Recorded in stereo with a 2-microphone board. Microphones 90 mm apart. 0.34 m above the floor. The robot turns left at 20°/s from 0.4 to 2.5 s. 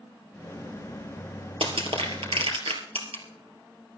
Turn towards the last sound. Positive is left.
turn(degrees=-85)